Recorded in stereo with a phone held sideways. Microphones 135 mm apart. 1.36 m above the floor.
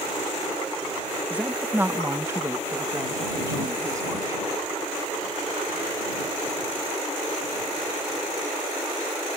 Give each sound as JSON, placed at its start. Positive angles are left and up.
{"t": 1.3, "sound": "a woman speaking", "side_deg": -10}